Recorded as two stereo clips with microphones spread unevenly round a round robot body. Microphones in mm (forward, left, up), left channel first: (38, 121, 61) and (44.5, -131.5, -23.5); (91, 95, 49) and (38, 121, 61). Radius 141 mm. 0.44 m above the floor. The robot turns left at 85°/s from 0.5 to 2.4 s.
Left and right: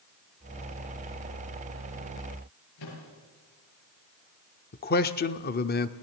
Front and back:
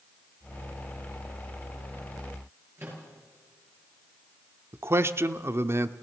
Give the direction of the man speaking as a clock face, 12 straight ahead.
7 o'clock.